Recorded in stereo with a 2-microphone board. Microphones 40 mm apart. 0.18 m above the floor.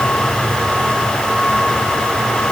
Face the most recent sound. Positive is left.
No sound to turn to.